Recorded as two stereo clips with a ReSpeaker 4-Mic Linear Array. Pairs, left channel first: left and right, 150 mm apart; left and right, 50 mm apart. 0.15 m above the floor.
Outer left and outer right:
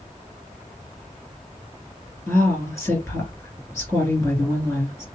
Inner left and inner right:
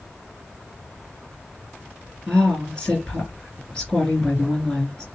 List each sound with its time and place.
2.3 s a woman speaking: 20° left (ahead or behind), 2.5 m